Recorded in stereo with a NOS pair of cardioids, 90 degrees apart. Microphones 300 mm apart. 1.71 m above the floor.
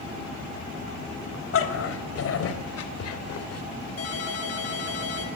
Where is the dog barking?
50° left, 4 m; by 3.6 s 70° left, 2.5 m.